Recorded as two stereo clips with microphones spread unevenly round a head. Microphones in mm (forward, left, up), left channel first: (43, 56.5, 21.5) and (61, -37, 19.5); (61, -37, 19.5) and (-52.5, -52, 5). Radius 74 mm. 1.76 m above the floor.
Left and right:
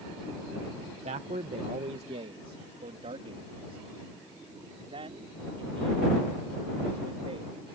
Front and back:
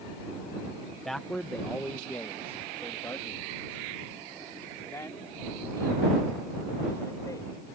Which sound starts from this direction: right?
A man speaking, at 1.1 s.